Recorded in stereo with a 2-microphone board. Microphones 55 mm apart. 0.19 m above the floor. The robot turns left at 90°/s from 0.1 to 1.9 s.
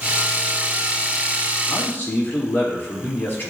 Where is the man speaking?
55° left (ahead or behind), 3.5 m; by 3.5 s 35° left (ahead or behind), 3.5 m.